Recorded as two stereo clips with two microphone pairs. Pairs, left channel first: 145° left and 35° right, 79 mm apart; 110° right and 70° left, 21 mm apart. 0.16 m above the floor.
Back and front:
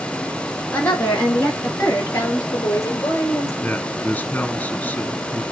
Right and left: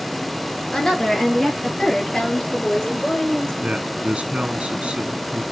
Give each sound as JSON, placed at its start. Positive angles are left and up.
{"t": 0.7, "sound": "a woman speaking", "azimuth_deg": -155, "distance_m": 2.0}
{"t": 3.6, "sound": "a man speaking", "azimuth_deg": 75, "distance_m": 2.5}